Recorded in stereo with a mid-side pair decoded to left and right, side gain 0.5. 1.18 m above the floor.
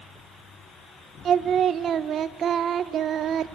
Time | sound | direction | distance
1.2 | singing | 55° right | 0.6 m